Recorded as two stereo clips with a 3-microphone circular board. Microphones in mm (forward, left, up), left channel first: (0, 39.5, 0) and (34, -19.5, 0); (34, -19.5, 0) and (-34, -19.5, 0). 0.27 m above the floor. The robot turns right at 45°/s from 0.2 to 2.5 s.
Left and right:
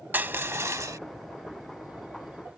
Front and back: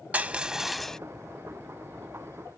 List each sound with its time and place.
0.1 s crushing: 115° right; by 1.0 s 80° right